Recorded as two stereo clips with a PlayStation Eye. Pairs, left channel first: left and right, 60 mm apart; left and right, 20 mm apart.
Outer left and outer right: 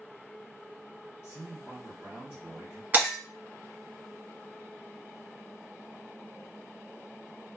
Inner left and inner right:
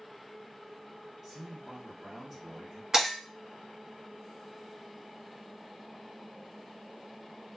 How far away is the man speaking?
About 1.5 m.